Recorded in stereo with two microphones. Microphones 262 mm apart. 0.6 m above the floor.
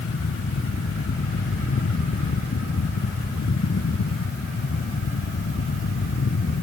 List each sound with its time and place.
Only background noise.